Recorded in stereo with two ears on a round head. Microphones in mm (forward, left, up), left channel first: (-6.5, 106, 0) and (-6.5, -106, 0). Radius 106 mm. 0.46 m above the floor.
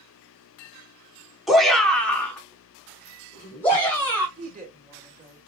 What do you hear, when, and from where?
1.5 s a shout: centre (ahead or behind), 0.9 m; by 4.3 s 10° left (ahead or behind), 2.5 m
4.4 s a woman speaking: 35° right (ahead or behind), 2.0 m